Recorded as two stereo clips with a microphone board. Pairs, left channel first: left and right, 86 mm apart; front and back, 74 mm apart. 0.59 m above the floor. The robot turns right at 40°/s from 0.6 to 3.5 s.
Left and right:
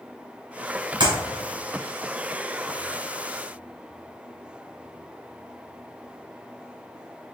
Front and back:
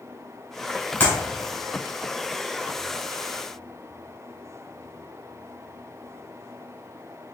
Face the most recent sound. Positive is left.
turn(degrees=30)